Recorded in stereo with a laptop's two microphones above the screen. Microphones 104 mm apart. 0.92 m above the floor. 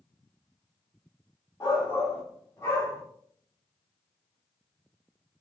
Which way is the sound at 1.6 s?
25° left (ahead or behind).